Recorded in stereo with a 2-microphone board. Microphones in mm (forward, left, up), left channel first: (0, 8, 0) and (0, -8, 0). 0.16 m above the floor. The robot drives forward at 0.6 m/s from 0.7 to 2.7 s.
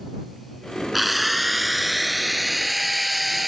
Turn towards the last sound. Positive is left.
turn(degrees=0)  # may be behind; listen again after turning